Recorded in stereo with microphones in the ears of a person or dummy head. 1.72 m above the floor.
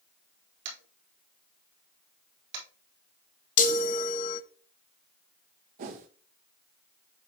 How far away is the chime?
About 0.5 m.